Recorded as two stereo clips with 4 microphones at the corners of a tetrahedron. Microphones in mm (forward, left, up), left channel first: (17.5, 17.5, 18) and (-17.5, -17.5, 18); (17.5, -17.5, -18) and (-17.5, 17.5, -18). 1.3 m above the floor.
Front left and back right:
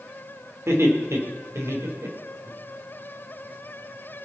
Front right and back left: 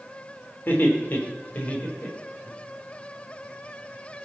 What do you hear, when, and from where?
0.7 s laughter: 100° right, 4 m; by 2.5 s 110° right, 5 m